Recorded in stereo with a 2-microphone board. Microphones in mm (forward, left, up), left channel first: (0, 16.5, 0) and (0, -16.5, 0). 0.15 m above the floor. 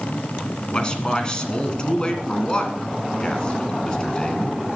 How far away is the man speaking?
About 1.8 m.